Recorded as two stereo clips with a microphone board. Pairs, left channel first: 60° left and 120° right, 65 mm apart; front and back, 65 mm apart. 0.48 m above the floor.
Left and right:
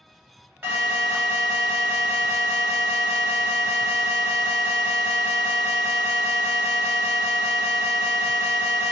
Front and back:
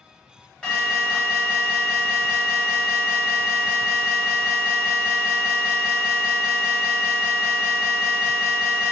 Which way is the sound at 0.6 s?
65° right.